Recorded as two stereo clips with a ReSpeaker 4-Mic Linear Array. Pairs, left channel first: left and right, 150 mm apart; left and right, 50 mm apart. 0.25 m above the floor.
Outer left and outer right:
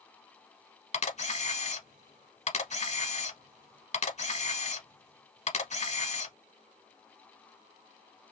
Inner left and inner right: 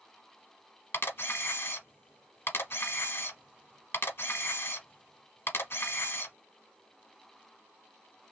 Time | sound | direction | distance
0.9 | a camera shutter | 50° left (ahead or behind) | 0.8 m